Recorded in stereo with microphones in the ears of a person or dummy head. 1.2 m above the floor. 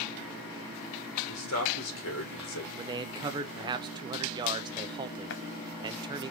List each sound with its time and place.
1.3 s a man speaking: 75° left (ahead or behind), 3 m
2.8 s a man speaking: 20° right (ahead or behind), 0.6 m
5.3 s a running tap: 55° left (ahead or behind), 0.7 m